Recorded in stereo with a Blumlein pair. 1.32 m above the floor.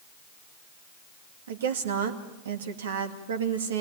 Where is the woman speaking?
65° right, 2.5 m.